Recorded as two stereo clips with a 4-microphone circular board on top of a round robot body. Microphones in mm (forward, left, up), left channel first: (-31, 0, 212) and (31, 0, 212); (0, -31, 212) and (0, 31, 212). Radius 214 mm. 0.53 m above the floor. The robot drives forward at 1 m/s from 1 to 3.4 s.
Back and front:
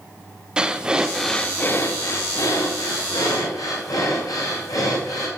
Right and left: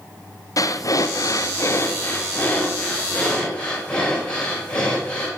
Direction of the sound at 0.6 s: 75° right.